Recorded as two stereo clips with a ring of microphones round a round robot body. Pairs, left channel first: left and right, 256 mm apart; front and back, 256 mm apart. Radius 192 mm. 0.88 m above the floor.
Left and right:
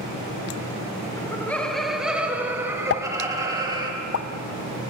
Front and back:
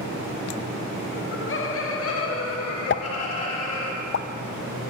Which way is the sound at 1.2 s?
15° left.